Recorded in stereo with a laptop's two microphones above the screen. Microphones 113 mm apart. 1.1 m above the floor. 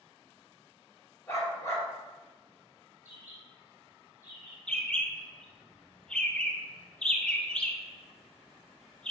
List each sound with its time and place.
1.3 s a dog barking: 25° left (ahead or behind), 0.8 m
3.0 s a bird: 15° right (ahead or behind), 1.3 m
4.7 s a bird: 10° left (ahead or behind), 0.5 m